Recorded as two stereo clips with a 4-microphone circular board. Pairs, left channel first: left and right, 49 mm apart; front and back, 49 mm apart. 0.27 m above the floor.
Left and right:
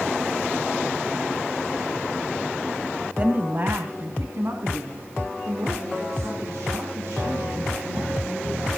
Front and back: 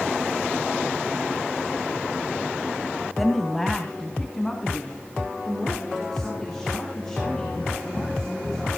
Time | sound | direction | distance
3.2 | a woman speaking | 85° right | 1.5 m